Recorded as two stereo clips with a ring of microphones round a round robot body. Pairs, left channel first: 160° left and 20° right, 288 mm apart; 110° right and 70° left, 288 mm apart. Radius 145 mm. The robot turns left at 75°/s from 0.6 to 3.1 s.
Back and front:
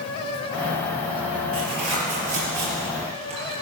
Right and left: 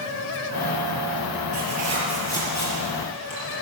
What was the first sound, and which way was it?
Tearing paper, 25° left.